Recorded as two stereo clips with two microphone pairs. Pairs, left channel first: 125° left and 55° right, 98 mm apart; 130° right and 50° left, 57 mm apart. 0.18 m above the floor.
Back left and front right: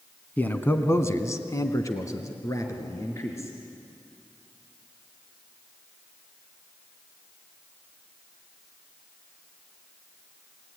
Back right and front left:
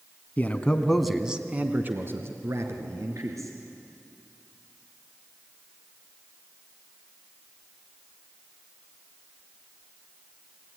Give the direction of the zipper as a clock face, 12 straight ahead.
I don't hear a zipper.